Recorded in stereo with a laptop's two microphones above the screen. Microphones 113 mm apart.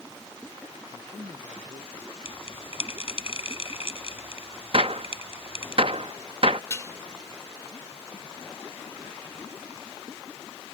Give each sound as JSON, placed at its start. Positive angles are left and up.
{"t": 0.9, "sound": "a man speaking", "side_deg": -55}
{"t": 2.2, "sound": "a bell", "side_deg": 55}
{"t": 4.7, "sound": "a gunshot", "side_deg": -55}
{"t": 6.7, "sound": "dishes clattering", "side_deg": 30}